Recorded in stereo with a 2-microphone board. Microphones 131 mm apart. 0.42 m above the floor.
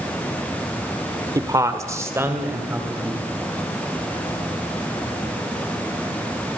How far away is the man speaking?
About 1.5 m.